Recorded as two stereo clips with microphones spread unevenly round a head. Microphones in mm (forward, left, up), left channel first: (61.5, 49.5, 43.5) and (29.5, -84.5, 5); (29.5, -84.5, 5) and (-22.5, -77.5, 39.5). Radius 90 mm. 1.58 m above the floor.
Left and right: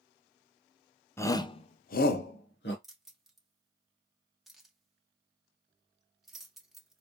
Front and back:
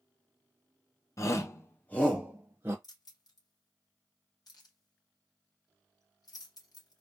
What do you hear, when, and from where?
1.2 s a shout: straight ahead, 1.3 m; by 2.7 s 100° left, 1.5 m
2.8 s keys jangling: 10° right, 2.0 m